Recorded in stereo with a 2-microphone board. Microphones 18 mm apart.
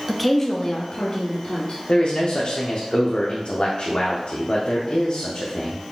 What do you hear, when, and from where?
0.1 s a woman speaking: 5° right (ahead or behind), 0.6 m; by 1.8 s 70° left (ahead or behind), 1.5 m
1.9 s a man speaking: 70° left (ahead or behind), 0.6 m